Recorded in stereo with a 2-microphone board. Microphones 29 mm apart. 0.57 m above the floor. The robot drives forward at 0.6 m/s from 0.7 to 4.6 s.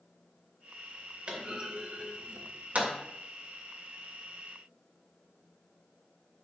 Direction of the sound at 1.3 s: 45° right (ahead or behind).